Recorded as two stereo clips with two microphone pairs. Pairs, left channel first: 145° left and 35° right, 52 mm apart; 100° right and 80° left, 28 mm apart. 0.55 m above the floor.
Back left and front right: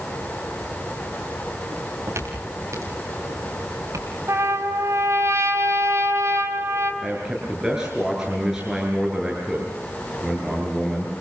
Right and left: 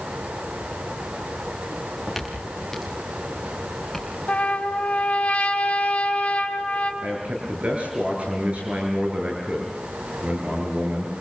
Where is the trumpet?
60° right, 4.5 m.